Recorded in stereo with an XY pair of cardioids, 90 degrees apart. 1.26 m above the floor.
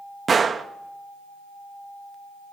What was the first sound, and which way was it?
A gunshot, 40° right.